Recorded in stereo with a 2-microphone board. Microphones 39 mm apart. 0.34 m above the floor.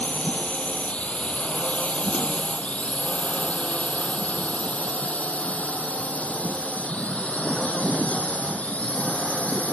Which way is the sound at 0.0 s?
35° left (ahead or behind).